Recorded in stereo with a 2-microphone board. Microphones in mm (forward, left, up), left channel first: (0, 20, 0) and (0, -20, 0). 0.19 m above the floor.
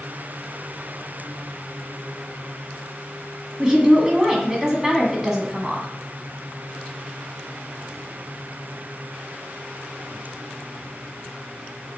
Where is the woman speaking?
15° right (ahead or behind), 1.3 m.